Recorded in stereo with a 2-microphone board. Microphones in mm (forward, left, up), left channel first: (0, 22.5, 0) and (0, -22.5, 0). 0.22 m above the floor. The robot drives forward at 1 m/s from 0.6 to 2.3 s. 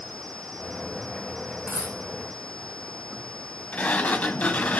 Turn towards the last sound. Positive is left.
turn(degrees=35)  # may be behind; listen again after turning